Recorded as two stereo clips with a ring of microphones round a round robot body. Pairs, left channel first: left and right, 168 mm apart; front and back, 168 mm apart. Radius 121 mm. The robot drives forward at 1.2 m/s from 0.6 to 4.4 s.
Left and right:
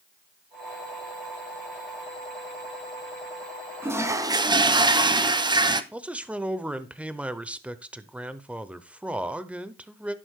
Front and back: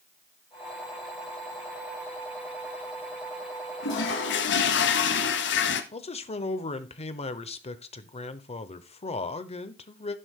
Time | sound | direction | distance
3.8 | a toilet flushing | 15° right | 1.5 m
5.9 | a man speaking | 15° right | 0.9 m